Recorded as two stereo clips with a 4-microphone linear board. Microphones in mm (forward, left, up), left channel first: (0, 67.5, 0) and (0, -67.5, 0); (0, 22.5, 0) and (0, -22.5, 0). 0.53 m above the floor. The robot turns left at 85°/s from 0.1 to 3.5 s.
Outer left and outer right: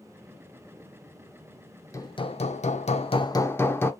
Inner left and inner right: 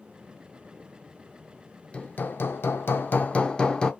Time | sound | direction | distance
1.9 | hammering | 155° left | 0.5 m